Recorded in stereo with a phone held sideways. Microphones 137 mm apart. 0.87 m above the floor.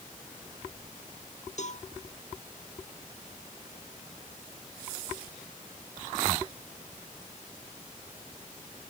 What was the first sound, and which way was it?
A cowbell, 55° left (ahead or behind).